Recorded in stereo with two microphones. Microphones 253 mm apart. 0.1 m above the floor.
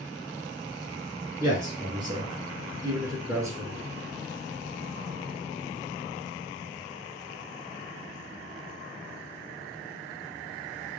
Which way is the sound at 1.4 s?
15° right (ahead or behind).